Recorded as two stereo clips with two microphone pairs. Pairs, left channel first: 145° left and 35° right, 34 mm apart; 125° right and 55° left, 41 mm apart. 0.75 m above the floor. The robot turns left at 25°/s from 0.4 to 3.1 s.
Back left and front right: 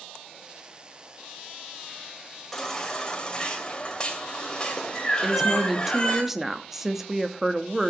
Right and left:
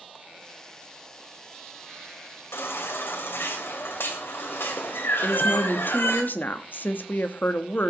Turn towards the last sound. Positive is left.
turn(degrees=-115)